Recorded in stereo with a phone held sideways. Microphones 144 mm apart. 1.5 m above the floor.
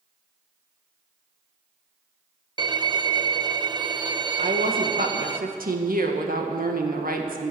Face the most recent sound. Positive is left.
turn(degrees=-80)